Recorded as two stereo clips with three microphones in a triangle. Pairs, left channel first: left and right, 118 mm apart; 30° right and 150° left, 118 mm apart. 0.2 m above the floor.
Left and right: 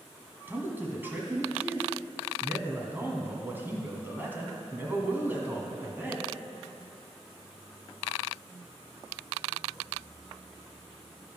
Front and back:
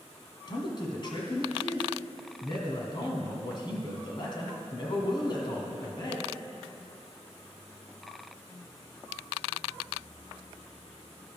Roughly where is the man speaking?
Ahead right.